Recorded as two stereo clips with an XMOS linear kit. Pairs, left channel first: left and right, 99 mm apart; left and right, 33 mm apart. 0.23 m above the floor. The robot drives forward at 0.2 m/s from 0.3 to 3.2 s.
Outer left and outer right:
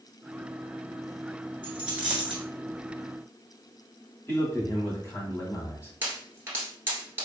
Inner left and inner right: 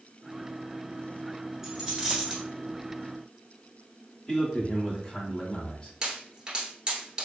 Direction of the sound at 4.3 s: 25° left (ahead or behind).